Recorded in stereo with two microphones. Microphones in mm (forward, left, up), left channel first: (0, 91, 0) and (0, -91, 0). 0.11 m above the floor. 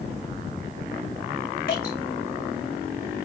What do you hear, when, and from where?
1.7 s dripping: 55° left (ahead or behind), 4.5 m